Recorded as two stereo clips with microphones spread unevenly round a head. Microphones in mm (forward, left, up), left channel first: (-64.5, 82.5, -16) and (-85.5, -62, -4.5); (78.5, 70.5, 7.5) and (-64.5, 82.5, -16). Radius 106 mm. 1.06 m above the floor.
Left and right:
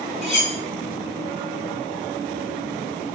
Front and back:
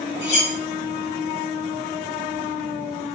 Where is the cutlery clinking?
15° right, 1.6 m.